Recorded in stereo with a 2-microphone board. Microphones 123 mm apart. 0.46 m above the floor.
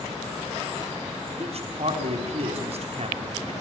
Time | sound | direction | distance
1.4 | a man speaking | 60° right (ahead or behind) | 3.5 m